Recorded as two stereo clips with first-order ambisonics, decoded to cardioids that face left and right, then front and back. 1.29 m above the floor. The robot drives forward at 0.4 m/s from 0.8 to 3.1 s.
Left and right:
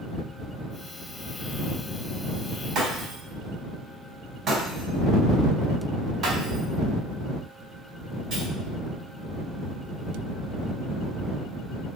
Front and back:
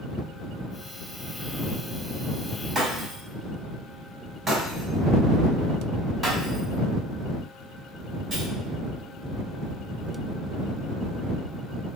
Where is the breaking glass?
125° right, 1.4 m; by 8.5 s 130° right, 1.4 m.